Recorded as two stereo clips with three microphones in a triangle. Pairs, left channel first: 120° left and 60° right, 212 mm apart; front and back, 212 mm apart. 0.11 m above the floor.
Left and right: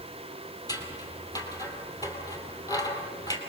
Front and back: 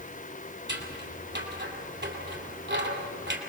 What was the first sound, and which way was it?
Scissors, 170° right.